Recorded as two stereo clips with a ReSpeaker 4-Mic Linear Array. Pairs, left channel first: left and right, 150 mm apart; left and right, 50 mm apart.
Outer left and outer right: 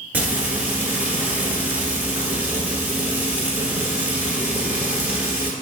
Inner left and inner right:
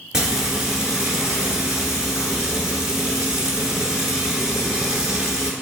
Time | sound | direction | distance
0.1 | frying | 10° right (ahead or behind) | 1.1 m